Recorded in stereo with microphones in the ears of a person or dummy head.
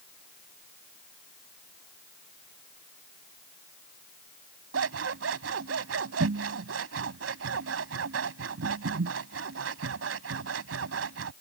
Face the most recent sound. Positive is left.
turn(degrees=-80)